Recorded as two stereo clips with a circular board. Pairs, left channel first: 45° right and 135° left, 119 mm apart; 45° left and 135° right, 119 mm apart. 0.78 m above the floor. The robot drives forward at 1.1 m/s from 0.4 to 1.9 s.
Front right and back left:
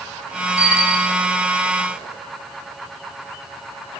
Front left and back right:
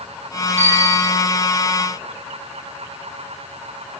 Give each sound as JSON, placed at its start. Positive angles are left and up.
{"t": 0.6, "sound": "a bicycle bell", "azimuth_deg": 20, "distance_m": 5.0}